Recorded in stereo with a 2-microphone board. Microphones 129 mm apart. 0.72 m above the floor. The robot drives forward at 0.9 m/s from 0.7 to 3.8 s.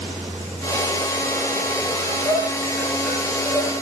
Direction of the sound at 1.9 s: Centre (ahead or behind).